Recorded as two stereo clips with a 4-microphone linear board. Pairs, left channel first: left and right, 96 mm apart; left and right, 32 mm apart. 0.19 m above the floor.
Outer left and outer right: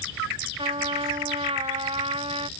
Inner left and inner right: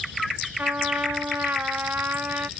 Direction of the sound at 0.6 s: 75° right (ahead or behind).